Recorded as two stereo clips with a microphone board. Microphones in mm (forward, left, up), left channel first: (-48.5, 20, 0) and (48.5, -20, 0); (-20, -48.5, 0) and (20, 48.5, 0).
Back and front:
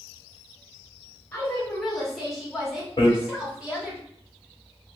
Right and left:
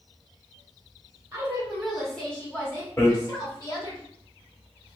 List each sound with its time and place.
1.3 s a woman speaking: 95° left, 1.1 m; by 4.0 s 95° right, 1.5 m
3.0 s hammering: 170° right, 1.0 m